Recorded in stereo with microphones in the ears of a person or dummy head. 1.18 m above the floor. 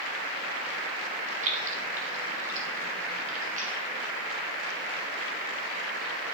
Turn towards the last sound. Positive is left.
turn(degrees=-40)  # may be behind; listen again after turning